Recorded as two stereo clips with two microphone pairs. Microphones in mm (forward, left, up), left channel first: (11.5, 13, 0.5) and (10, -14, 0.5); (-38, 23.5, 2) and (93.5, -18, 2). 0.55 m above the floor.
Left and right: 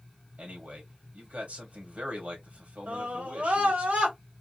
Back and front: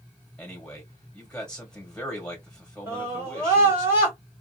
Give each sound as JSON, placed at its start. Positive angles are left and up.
{"t": 0.4, "sound": "a man speaking", "azimuth_deg": -115, "distance_m": 2.5}
{"t": 2.9, "sound": "a scream", "azimuth_deg": -85, "distance_m": 2.5}